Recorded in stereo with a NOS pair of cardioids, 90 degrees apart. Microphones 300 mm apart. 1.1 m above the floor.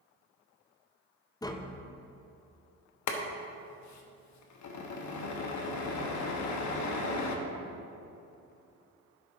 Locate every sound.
1.4 s tapping: 15° left, 0.7 m
3.1 s boiling: 65° left, 1.1 m